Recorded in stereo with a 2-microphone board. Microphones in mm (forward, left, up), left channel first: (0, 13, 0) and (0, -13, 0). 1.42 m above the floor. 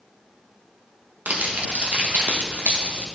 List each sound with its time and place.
1.3 s crumpling: 70° right (ahead or behind), 1.3 m